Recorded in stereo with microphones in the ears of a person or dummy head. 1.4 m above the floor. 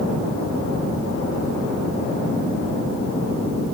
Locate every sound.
Only background noise.